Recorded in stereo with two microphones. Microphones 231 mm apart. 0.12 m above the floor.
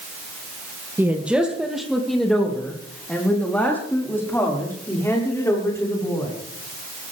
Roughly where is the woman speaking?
Centre.